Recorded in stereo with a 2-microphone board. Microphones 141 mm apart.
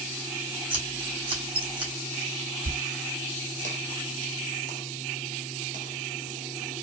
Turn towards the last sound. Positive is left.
turn(degrees=-70)  # may be behind; listen again after turning